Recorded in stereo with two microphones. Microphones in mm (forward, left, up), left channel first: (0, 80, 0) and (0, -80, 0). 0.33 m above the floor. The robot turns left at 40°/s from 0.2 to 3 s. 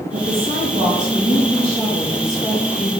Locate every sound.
0.1 s a woman speaking: 90° right, 1.9 m; by 2.9 s 160° left, 1.9 m